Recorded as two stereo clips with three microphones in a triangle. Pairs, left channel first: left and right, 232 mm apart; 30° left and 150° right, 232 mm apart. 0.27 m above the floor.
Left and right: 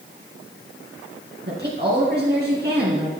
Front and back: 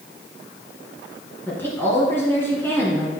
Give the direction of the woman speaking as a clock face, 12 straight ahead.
2 o'clock.